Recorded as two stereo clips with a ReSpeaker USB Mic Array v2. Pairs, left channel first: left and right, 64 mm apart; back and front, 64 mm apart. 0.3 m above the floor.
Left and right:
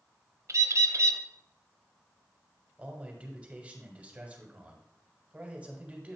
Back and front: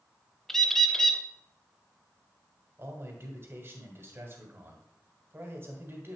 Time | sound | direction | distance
0.5 | a bird | 100° right | 0.5 m
2.8 | a man speaking | 30° right | 1.6 m